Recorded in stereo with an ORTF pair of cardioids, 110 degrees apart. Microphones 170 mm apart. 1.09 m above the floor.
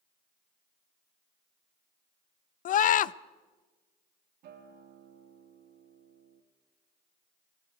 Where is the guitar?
70° right, 2.5 m.